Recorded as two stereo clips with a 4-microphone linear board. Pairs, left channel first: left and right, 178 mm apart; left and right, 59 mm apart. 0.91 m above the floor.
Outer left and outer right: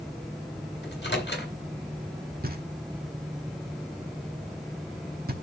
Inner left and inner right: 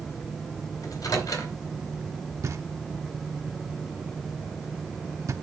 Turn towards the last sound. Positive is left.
turn(degrees=-60)  # may be behind; listen again after turning